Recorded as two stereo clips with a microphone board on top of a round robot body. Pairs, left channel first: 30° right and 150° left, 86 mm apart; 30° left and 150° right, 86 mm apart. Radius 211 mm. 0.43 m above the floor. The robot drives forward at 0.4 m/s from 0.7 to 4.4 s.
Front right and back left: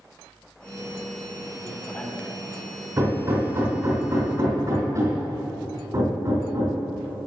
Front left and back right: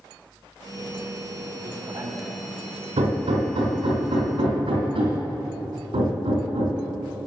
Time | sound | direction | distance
1.6 | a man speaking | 95° right | 1.6 m
3.0 | hammering | 150° right | 3 m